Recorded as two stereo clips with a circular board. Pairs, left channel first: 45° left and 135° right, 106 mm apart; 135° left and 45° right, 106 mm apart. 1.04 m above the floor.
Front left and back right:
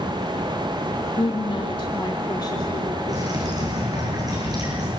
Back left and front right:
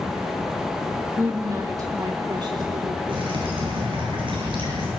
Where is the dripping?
85° right, 9.5 m.